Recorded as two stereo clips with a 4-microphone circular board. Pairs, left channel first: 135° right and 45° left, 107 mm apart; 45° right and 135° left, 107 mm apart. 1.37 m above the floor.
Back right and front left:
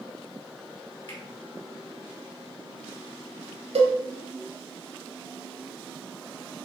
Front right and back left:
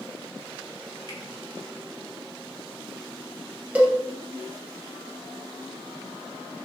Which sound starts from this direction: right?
A finger snap, at 1.1 s.